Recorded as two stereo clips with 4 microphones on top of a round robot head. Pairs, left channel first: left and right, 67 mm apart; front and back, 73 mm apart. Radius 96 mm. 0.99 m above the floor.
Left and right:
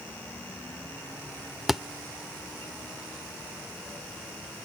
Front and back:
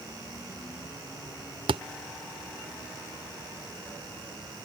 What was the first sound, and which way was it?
A thud, 175° right.